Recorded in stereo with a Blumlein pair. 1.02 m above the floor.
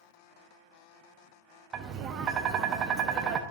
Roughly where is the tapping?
Ahead right.